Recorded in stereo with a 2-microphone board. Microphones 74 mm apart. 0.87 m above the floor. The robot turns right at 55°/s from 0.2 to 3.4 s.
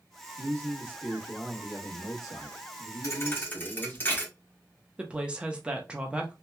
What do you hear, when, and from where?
0.4 s a man speaking: 50° right, 1.2 m; by 4.0 s 115° left, 1.2 m
3.0 s a thud: 45° left (ahead or behind), 0.8 m; by 4.3 s 25° left (ahead or behind), 0.8 m
5.0 s a woman speaking: 15° right (ahead or behind), 0.6 m